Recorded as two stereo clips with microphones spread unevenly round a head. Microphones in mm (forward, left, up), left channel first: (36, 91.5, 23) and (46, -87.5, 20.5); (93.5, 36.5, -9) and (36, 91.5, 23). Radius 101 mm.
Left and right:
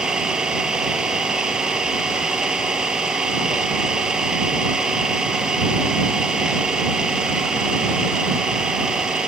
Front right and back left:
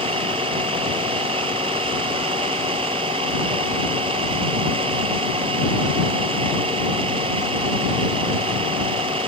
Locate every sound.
0.0 s an engine running: 175° right